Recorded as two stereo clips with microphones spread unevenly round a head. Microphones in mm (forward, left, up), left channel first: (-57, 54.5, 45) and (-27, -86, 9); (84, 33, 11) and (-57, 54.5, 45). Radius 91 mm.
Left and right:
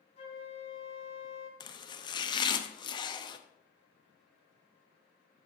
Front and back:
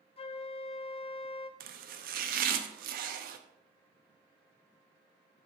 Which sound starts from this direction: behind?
Chopping, at 1.6 s.